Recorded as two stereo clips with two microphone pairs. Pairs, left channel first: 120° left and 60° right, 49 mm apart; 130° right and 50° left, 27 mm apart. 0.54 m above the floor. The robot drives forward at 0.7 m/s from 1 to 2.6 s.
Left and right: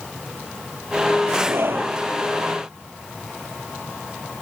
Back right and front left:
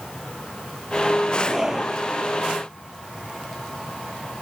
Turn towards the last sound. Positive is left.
turn(degrees=-25)